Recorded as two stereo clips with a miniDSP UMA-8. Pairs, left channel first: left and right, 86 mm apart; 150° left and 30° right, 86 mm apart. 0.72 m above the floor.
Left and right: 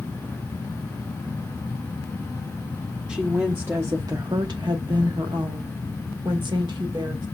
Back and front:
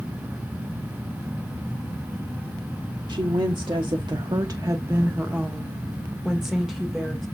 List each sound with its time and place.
3.1 s a woman speaking: 10° right, 1.2 m; by 7.2 s 120° right, 2 m